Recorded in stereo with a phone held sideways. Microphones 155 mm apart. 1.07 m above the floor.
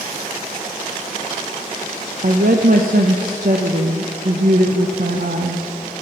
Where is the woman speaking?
70° right (ahead or behind), 0.5 m.